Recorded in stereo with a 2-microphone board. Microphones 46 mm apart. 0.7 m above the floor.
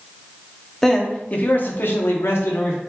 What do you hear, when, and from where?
0.8 s a man speaking: 5° left (ahead or behind), 1.0 m; by 2.8 s 70° left (ahead or behind), 1.4 m